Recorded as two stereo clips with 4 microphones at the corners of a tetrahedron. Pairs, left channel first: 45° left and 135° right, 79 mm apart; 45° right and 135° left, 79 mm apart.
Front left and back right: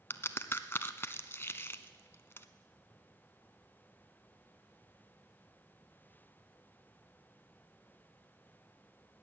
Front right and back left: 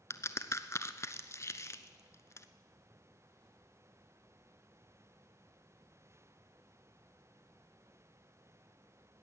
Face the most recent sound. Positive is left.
turn(degrees=-10)